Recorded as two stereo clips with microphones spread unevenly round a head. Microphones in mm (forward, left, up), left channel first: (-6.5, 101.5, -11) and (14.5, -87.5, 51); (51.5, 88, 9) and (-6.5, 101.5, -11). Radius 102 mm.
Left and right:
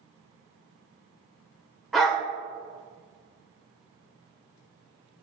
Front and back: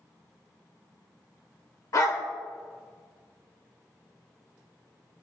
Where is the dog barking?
Straight ahead, 1.6 m.